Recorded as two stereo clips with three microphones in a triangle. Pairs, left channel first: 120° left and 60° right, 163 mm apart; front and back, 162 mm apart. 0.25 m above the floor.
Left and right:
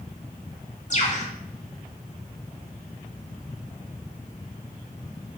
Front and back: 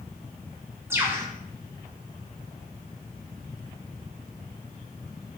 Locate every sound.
0.9 s a bird: 110° left, 1.4 m